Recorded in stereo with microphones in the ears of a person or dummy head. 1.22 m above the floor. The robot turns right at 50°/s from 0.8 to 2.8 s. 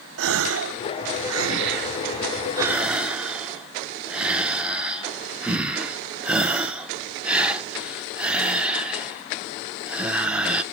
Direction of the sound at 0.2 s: 70° right (ahead or behind).